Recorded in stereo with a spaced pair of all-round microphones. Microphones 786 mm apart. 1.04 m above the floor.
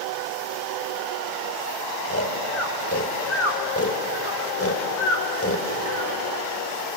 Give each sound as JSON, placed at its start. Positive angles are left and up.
{"t": 2.0, "sound": "snoring", "side_deg": 15, "distance_m": 3.0}